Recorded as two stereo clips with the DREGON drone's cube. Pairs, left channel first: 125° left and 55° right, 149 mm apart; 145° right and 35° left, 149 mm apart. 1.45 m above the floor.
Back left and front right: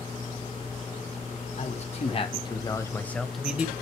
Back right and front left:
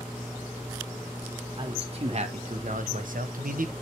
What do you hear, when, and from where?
1.6 s a man speaking: 85° left, 1.4 m; by 3.7 s 20° left, 0.9 m